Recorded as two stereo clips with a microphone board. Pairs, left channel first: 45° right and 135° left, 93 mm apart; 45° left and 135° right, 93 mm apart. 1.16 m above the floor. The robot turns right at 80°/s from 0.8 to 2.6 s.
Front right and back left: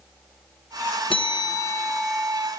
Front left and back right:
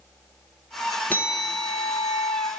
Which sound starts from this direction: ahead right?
A bell, at 1.1 s.